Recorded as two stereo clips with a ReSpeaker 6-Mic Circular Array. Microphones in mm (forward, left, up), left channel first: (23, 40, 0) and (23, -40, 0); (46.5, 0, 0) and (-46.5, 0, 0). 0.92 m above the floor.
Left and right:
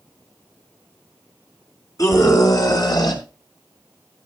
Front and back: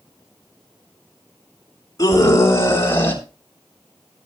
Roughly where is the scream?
Ahead left.